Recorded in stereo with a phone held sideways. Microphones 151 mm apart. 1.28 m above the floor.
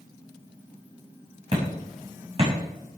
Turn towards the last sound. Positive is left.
turn(degrees=-40)  # may be behind; listen again after turning